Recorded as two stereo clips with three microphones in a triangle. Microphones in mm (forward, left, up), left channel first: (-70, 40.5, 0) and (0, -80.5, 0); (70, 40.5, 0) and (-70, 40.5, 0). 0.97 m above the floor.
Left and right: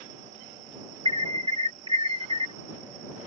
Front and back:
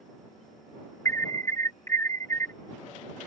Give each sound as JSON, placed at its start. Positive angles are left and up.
{"t": 1.1, "sound": "an alarm", "azimuth_deg": -60}